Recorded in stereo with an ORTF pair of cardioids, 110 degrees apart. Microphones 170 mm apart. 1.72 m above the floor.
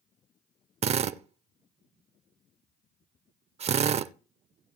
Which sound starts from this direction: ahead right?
A drill, at 0.8 s.